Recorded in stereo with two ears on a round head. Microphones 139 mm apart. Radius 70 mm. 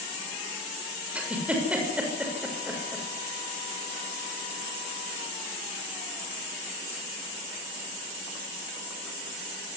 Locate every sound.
1.1 s a giggle: 10° right (ahead or behind), 6 m